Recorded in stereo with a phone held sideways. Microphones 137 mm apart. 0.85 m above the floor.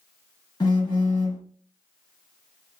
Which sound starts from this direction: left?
A phone buzzing, at 0.6 s.